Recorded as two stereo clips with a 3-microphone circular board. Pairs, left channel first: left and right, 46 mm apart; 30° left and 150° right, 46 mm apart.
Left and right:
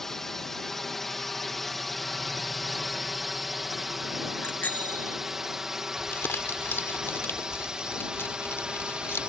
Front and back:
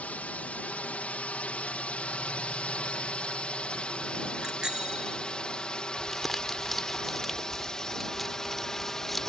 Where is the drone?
15° left; by 9.3 s 40° right.